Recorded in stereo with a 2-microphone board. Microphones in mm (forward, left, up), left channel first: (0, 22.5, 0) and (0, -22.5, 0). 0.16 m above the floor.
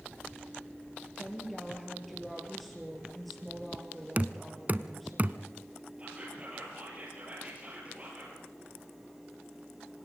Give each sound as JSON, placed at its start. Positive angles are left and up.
{"t": 1.2, "sound": "a woman speaking", "side_deg": 0, "distance_m": 3.0}
{"t": 4.2, "sound": "knocking", "side_deg": -35, "distance_m": 0.8}
{"t": 6.0, "sound": "whispering", "side_deg": -30, "distance_m": 4.5}